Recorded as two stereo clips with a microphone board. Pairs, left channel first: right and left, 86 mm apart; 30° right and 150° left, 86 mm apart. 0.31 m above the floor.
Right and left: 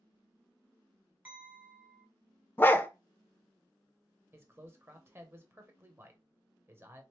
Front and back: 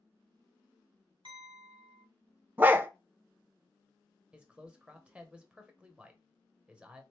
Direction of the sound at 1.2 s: 155° left.